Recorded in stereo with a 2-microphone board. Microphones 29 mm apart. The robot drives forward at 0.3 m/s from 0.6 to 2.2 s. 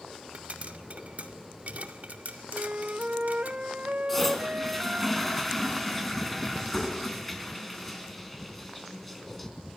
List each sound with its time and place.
0.3 s a pop: 55° right (ahead or behind), 2 m; by 3.5 s 60° right (ahead or behind), 2 m
2.5 s a flute: 55° right (ahead or behind), 0.5 m
4.1 s a toilet flushing: 5° left (ahead or behind), 4 m